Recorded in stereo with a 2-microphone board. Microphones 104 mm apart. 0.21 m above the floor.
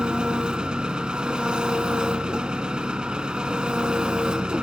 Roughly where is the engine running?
Centre.